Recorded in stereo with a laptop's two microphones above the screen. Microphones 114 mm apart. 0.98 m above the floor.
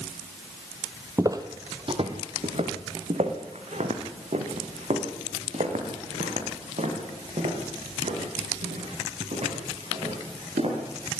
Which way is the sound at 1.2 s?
25° right (ahead or behind).